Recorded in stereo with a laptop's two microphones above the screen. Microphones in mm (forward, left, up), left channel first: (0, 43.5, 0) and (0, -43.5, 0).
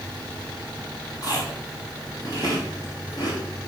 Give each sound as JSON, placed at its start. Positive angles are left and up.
{"t": 1.2, "sound": "chewing", "side_deg": 45, "distance_m": 2.0}